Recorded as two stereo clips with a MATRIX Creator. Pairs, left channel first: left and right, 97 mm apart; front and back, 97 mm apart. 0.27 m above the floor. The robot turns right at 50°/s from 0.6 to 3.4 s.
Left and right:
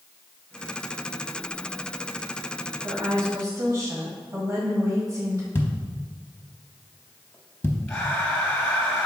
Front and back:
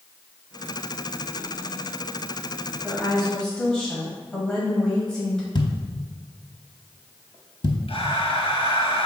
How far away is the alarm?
I don't hear an alarm.